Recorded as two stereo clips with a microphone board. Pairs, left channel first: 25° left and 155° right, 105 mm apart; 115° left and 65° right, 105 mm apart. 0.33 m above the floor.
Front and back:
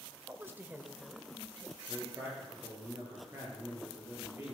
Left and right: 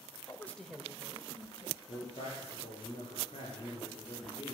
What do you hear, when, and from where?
0.3 s a woman speaking: 150° left, 1.3 m; by 1.8 s 65° right, 1.9 m
1.9 s a man speaking: 135° left, 7.5 m